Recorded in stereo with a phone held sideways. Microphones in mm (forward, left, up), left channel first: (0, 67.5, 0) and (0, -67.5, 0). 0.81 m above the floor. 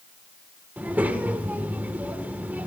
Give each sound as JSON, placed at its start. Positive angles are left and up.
{"t": 0.8, "sound": "a child speaking", "side_deg": -10, "distance_m": 1.5}